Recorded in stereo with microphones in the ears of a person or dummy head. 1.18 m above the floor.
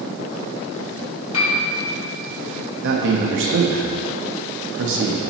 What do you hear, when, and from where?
1.3 s a piano: 80° left, 2 m
2.8 s a man speaking: 65° right (ahead or behind), 1.2 m